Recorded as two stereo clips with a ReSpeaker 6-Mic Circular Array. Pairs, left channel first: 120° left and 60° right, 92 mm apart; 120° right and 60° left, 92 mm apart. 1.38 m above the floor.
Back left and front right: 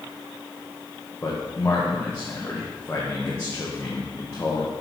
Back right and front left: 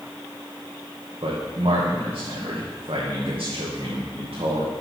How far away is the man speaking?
About 1.3 m.